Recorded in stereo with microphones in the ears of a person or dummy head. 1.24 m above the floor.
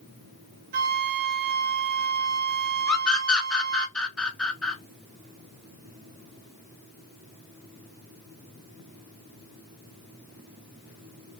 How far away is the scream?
About 0.6 m.